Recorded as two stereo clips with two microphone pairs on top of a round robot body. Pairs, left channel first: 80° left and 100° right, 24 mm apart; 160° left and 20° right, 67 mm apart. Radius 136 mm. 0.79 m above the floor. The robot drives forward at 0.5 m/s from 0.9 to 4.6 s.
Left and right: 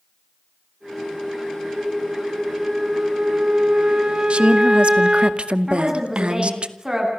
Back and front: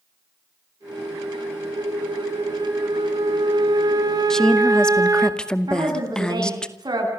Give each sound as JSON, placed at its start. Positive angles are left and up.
{"t": 1.7, "sound": "a flute", "azimuth_deg": -25, "distance_m": 3.0}
{"t": 4.3, "sound": "a woman speaking", "azimuth_deg": -115, "distance_m": 2.0}
{"t": 5.7, "sound": "a woman speaking", "azimuth_deg": -25, "distance_m": 9.5}